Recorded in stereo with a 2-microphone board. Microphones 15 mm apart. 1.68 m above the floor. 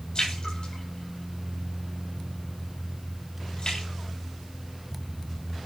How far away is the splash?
About 8 m.